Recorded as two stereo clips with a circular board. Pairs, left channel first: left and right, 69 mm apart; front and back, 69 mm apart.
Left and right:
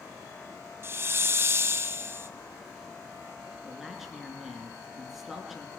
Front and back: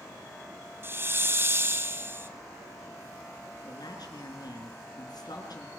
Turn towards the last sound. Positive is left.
turn(degrees=-5)